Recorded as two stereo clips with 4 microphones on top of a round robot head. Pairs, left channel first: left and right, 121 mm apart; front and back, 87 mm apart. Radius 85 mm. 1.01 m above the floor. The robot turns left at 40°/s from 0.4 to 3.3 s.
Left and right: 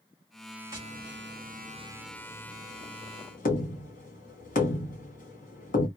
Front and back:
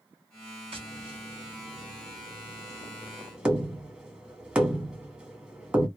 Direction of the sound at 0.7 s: 155° right.